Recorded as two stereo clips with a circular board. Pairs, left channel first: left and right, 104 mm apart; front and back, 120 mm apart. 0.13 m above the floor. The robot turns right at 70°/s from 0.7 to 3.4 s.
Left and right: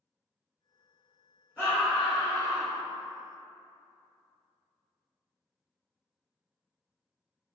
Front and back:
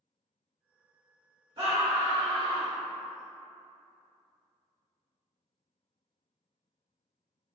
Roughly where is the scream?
Behind left.